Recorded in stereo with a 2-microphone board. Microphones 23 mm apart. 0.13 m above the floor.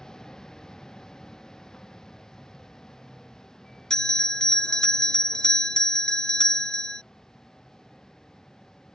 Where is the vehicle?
30° left (ahead or behind).